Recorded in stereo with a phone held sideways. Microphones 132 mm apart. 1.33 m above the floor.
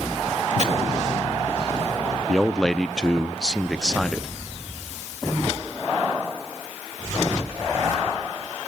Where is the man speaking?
5° left (ahead or behind), 0.6 m.